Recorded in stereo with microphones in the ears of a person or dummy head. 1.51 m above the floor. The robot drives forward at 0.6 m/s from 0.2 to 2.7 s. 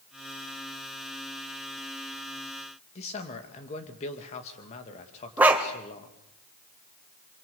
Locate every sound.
3.0 s a man speaking: 35° left (ahead or behind), 2.5 m
5.4 s a dog barking: 5° right (ahead or behind), 1.8 m